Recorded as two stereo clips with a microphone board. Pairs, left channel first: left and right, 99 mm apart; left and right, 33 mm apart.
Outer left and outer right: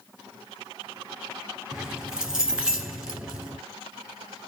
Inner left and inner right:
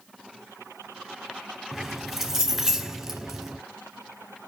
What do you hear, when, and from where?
1.7 s keys jangling: 5° right (ahead or behind), 1.7 m